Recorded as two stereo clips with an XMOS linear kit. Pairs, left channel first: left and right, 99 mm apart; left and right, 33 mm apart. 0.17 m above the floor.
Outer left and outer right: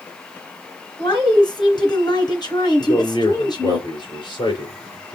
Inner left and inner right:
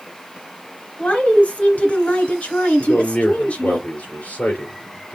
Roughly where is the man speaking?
Left.